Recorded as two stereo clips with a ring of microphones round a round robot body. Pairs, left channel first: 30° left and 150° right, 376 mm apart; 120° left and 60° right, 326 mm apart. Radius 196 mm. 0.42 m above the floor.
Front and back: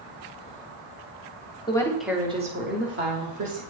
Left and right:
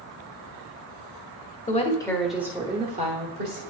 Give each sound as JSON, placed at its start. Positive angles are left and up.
{"t": 1.7, "sound": "a woman speaking", "azimuth_deg": 90, "distance_m": 1.1}